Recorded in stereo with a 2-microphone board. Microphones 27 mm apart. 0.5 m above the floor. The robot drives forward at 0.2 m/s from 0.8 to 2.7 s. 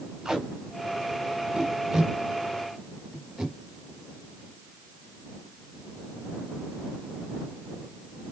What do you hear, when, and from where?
0.2 s tape being pulled: 15° right (ahead or behind), 3.5 m